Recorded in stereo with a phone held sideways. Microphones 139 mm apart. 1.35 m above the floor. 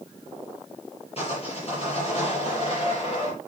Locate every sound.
1.2 s sawing: 45° left (ahead or behind), 7 m